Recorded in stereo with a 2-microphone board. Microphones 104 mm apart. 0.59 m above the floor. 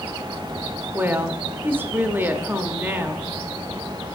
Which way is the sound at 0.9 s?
20° right (ahead or behind).